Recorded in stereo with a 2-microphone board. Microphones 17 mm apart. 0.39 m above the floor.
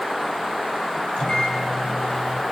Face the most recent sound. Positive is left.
turn(degrees=70)  # may be behind; listen again after turning